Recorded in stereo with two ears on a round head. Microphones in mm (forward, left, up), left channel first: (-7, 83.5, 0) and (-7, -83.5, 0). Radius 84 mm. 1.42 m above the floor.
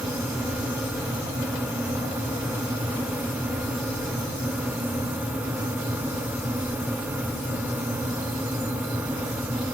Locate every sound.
Only background noise.